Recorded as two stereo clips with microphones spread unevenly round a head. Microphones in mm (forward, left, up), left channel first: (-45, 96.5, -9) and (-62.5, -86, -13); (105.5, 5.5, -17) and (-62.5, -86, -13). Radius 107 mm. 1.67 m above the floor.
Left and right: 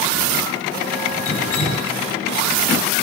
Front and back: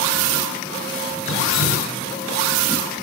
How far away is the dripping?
About 6 m.